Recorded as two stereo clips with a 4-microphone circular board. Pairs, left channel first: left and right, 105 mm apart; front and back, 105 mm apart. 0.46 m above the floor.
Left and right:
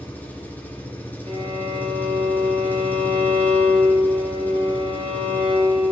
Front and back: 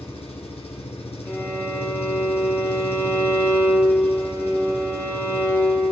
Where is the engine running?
15° left, 3 m.